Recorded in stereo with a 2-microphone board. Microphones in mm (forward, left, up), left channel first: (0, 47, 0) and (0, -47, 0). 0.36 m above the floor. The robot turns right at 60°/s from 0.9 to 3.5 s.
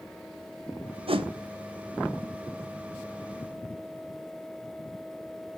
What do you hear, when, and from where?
1.1 s a whoosh: 75° right (ahead or behind), 0.5 m; by 1.3 s 65° right (ahead or behind), 0.5 m